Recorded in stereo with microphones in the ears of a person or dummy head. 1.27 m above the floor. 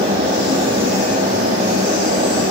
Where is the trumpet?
I don't hear a trumpet.